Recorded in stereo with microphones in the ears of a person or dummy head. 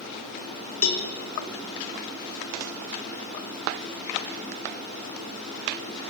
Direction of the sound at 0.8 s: 45° left (ahead or behind).